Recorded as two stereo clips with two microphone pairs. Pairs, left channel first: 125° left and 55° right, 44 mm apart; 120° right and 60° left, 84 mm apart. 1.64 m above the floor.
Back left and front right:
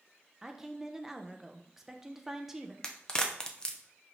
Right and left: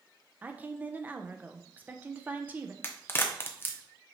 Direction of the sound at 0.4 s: 15° left.